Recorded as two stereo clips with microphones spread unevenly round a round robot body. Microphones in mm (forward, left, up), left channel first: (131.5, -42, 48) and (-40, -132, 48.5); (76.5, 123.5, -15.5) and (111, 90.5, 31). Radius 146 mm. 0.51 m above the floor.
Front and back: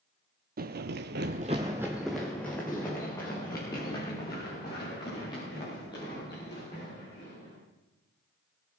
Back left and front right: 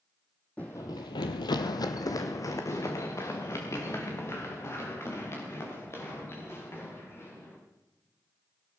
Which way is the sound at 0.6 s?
115° right.